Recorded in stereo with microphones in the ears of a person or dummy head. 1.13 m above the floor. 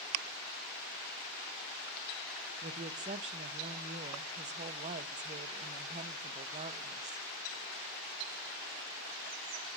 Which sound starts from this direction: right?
A woman speaking, at 2.6 s.